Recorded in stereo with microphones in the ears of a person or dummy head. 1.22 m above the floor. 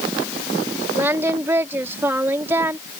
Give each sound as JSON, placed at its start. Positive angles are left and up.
{"t": 0.9, "sound": "singing", "side_deg": -15}